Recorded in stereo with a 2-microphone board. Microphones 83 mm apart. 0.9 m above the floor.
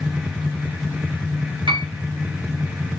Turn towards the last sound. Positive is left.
turn(degrees=-70)  # may be behind; listen again after turning